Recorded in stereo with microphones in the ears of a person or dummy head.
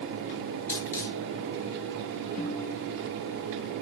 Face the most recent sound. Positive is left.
turn(degrees=40)  # may be behind; listen again after turning